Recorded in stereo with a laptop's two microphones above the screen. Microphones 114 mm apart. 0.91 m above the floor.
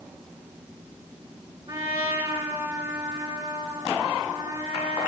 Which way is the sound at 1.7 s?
40° right (ahead or behind).